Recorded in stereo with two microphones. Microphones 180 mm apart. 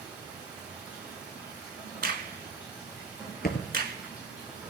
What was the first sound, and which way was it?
Running water, 10° right (ahead or behind).